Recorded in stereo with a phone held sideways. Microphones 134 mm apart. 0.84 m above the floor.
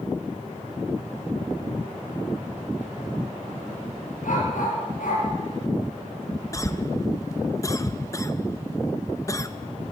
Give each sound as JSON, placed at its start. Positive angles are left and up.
{"t": 4.2, "sound": "a dog barking", "side_deg": 75, "distance_m": 7.5}
{"t": 6.5, "sound": "a cough", "side_deg": 25, "distance_m": 0.6}